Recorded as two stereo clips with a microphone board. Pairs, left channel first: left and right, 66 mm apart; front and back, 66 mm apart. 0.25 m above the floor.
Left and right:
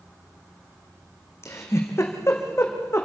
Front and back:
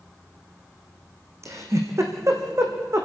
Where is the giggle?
140° left, 2.5 m.